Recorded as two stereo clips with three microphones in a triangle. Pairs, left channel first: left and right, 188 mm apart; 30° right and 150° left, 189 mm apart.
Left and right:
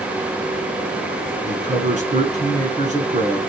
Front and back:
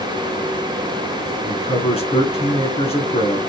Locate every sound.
1.5 s a man speaking: 70° right, 1.7 m